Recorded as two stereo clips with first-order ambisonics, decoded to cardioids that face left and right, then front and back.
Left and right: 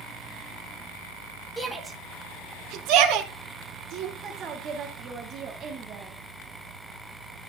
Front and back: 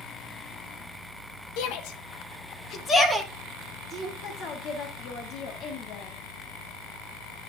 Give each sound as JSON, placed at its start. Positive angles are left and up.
{"t": 1.6, "sound": "a shout", "azimuth_deg": 0, "distance_m": 1.4}
{"t": 4.2, "sound": "a woman speaking", "azimuth_deg": -40, "distance_m": 1.3}